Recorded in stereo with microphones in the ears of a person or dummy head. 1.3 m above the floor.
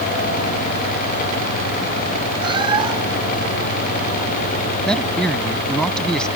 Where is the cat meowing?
30° right (ahead or behind).